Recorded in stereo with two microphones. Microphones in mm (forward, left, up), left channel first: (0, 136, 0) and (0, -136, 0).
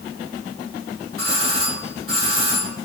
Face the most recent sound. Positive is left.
turn(degrees=-55)  # may be behind; listen again after turning